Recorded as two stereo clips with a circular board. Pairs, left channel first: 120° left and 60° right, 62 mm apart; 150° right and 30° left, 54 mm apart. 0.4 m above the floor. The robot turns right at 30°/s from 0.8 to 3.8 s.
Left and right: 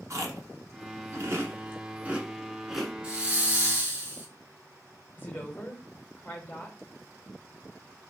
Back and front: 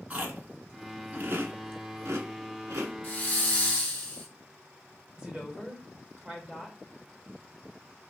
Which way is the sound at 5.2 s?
90° left.